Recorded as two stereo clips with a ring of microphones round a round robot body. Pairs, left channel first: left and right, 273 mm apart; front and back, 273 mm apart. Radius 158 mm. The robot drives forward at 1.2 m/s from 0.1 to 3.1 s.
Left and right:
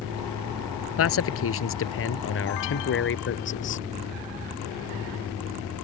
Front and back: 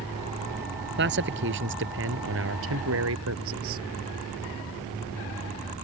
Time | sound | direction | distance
1.0 | a man speaking | 125° left | ?